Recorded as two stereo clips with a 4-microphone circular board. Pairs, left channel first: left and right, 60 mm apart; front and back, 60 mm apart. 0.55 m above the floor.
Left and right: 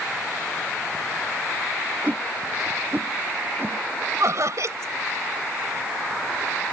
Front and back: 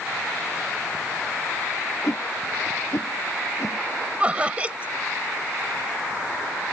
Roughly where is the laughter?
Behind right.